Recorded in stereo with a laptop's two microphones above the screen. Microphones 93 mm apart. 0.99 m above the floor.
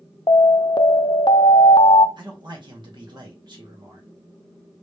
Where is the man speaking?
60° right (ahead or behind), 2.0 m.